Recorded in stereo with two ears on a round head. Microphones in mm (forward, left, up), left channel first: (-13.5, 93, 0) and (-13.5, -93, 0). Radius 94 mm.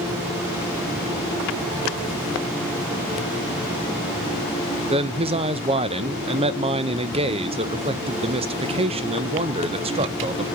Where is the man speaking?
30° right (ahead or behind), 0.5 m.